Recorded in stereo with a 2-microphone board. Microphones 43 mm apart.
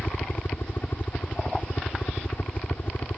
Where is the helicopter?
50° left (ahead or behind).